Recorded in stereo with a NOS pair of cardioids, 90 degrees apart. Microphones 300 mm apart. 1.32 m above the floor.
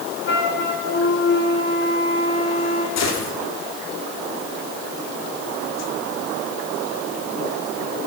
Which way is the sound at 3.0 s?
60° left.